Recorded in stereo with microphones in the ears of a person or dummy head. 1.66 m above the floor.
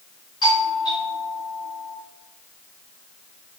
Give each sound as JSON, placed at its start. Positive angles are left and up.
{"t": 0.4, "sound": "a doorbell", "side_deg": 30, "distance_m": 5.5}